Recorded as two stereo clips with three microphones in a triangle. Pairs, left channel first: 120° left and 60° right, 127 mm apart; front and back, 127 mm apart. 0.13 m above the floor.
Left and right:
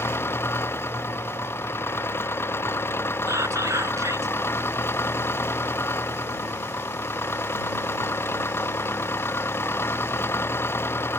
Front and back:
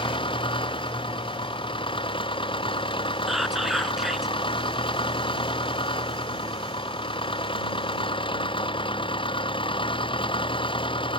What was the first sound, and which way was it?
An engine running, 50° left.